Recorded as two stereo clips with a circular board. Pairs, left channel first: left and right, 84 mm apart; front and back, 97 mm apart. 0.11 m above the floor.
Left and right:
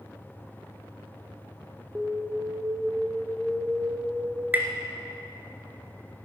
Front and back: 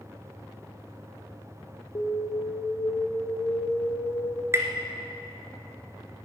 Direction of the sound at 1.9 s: 20° right.